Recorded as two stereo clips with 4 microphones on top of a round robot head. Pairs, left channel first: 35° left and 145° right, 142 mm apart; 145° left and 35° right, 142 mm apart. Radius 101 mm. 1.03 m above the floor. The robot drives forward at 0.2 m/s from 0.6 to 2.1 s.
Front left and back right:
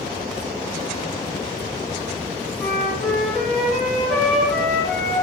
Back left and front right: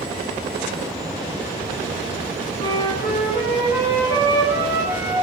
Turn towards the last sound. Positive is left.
turn(degrees=130)